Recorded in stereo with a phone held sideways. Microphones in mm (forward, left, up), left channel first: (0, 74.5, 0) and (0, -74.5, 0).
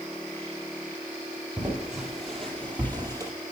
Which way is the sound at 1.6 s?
10° right (ahead or behind).